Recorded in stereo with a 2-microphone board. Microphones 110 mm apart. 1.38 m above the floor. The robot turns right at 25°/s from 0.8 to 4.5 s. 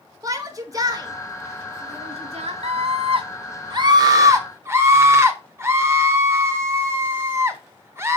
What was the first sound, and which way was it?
A shout, 35° right (ahead or behind).